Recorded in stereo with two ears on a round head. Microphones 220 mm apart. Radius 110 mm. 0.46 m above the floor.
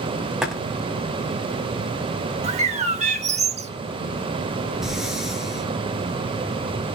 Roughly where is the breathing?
Centre.